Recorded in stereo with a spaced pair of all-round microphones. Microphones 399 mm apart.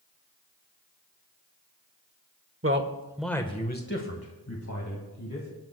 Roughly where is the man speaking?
Right.